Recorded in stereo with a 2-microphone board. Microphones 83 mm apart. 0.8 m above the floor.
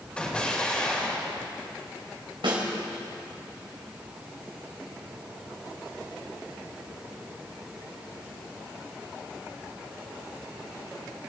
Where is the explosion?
15° left (ahead or behind), 2.5 m.